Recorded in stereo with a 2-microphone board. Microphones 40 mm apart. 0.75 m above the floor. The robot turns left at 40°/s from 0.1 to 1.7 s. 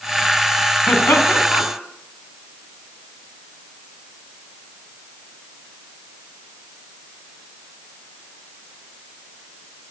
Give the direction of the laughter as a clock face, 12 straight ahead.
9 o'clock.